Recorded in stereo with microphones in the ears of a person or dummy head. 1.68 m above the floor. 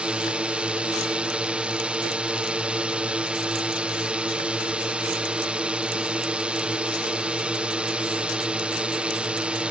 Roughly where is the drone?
Centre.